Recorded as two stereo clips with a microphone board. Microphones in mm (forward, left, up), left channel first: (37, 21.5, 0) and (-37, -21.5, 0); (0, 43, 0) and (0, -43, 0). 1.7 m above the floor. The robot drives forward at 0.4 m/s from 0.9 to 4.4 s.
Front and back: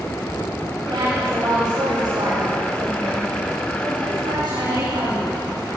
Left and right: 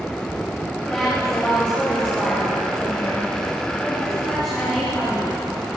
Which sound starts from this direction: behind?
A woman speaking, at 0.9 s.